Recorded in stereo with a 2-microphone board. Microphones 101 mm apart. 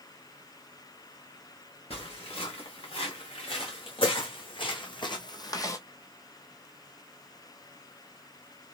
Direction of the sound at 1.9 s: 75° left (ahead or behind).